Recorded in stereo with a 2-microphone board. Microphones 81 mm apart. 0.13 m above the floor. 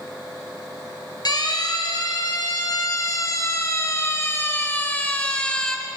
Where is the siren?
60° left (ahead or behind), 3 m; by 5.8 s 10° left (ahead or behind), 1.8 m.